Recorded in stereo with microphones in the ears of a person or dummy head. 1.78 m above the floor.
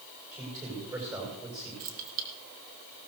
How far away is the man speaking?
About 7 m.